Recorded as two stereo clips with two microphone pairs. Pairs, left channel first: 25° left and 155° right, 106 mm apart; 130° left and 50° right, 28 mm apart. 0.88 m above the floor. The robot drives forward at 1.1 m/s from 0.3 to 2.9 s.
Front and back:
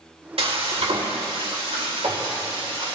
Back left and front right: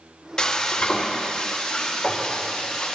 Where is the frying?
165° right, 1.5 m; by 3.0 s 175° right, 4 m.